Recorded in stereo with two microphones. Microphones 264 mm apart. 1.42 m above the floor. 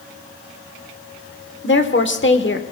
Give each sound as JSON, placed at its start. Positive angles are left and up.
{"t": 1.6, "sound": "a woman speaking", "side_deg": 45, "distance_m": 1.1}